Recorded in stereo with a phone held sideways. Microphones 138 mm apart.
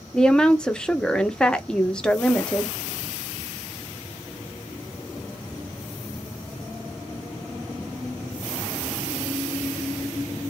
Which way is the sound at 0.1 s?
5° left (ahead or behind).